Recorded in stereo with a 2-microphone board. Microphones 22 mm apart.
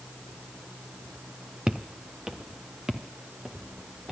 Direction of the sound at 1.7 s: 35° right (ahead or behind).